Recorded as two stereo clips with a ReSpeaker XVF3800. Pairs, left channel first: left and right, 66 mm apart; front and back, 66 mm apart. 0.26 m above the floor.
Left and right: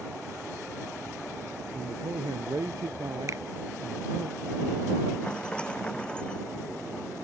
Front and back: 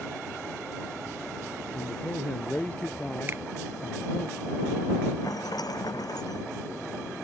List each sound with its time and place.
1.7 s a man speaking: 70° right
3.3 s a finger snap: 125° right
5.2 s a rattle: 15° left